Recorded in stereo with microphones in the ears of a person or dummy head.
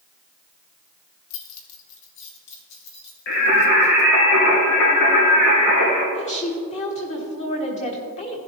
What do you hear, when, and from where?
1.3 s keys jangling: 70° left (ahead or behind), 1.1 m; by 4.1 s 60° left (ahead or behind), 3 m
3.3 s singing: 70° left (ahead or behind), 3.5 m
6.2 s a woman speaking: 35° left (ahead or behind), 1.4 m